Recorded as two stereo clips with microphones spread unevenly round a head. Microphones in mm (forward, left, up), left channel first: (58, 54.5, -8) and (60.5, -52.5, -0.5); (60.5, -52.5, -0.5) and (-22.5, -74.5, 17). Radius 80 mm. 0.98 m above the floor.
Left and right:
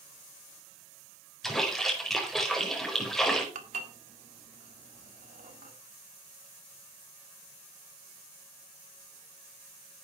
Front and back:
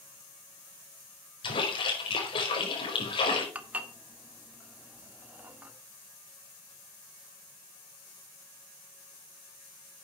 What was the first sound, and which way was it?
A splash, 5° left.